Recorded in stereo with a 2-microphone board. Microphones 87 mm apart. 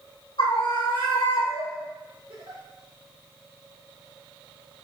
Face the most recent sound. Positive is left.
turn(degrees=-80)